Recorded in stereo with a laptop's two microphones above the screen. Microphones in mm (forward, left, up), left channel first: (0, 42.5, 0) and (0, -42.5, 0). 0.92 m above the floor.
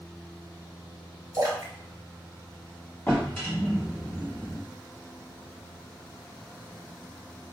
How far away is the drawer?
About 1.3 m.